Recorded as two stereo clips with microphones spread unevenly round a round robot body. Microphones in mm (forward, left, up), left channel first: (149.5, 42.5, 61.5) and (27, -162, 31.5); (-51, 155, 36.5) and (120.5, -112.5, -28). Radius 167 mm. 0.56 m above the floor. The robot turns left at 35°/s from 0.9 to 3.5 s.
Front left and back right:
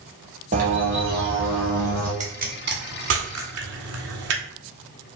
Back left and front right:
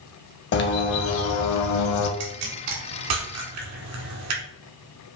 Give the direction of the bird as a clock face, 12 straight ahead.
6 o'clock.